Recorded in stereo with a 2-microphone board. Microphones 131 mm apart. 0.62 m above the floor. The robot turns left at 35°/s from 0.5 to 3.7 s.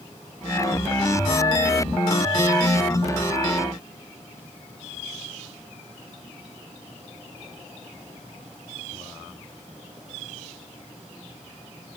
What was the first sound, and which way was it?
Only background noise.